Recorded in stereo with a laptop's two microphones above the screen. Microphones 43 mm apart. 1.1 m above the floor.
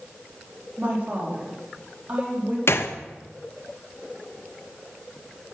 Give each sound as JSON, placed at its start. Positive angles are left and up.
{"t": 0.8, "sound": "a woman speaking", "side_deg": -35, "distance_m": 2.5}
{"t": 2.7, "sound": "a gunshot", "side_deg": 65, "distance_m": 0.6}